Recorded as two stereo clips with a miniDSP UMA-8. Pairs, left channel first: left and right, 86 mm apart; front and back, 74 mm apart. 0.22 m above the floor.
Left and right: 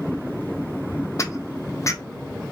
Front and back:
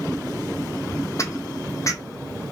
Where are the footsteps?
40° left, 0.5 m.